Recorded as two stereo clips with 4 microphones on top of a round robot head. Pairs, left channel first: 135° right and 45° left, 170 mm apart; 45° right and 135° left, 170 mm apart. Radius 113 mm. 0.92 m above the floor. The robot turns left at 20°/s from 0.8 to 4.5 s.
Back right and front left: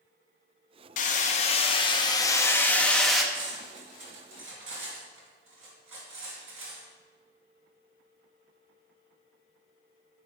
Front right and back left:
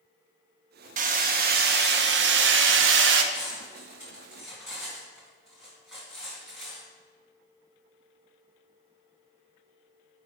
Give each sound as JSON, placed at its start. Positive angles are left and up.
{"t": 1.0, "sound": "hammering", "azimuth_deg": 180, "distance_m": 0.5}
{"t": 3.3, "sound": "cutlery clinking", "azimuth_deg": 65, "distance_m": 2.5}